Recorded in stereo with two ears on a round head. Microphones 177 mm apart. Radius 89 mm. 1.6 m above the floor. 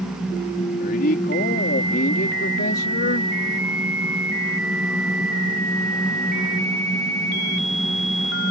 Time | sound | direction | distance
0.8 | a man speaking | 50° left (ahead or behind) | ?